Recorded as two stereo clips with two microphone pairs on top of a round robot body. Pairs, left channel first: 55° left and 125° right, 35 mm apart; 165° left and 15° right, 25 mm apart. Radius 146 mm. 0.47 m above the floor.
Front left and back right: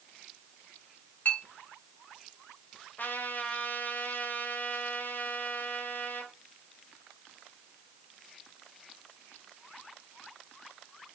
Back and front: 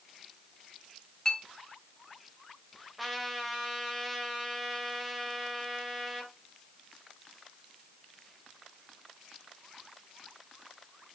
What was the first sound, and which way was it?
A clink, 95° left.